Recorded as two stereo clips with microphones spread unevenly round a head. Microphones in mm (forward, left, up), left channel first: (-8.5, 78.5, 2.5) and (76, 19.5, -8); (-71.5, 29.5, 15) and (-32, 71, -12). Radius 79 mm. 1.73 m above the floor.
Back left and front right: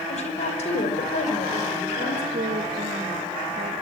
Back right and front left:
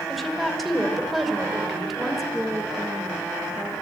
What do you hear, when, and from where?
0.1 s a woman speaking: 140° left, 6 m
2.3 s a woman speaking: 45° right, 2.5 m